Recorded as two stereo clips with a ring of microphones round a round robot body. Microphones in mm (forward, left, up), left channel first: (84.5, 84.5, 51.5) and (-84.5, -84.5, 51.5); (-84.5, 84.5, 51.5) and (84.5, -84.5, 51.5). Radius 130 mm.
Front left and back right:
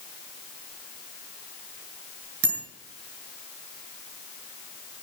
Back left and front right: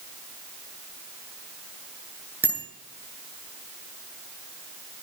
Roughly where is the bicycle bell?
Behind right.